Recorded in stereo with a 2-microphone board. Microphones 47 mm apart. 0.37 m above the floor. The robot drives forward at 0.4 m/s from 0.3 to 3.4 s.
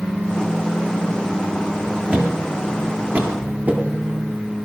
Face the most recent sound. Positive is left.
turn(degrees=-40)  # may be behind; listen again after turning